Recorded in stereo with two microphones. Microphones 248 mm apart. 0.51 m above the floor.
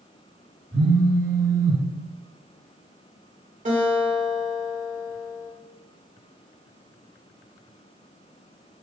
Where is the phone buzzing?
35° right (ahead or behind), 1.7 m.